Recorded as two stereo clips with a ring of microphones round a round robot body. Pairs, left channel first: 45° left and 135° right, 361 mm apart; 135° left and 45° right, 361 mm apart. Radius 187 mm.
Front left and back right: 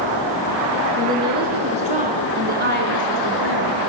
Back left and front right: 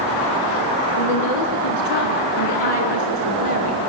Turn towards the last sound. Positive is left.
turn(degrees=170)